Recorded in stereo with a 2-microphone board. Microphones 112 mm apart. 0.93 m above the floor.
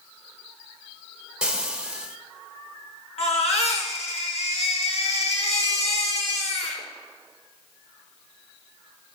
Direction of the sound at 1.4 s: 5° right (ahead or behind).